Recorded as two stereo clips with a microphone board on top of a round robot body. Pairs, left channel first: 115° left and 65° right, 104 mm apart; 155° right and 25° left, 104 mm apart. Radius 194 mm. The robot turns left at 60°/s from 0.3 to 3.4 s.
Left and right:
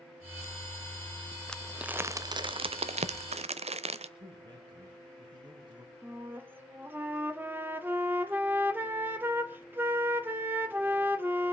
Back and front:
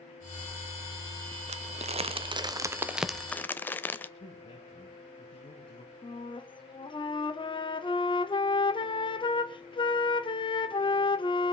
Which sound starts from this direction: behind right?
A flute, at 6.0 s.